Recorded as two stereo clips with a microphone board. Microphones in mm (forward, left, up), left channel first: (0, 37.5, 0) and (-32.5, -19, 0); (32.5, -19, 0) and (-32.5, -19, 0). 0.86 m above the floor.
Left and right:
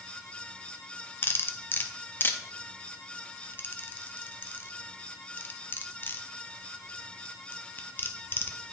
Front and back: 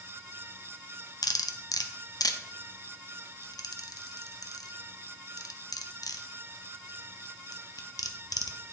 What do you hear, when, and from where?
1.2 s cutlery clinking: 5° left, 0.5 m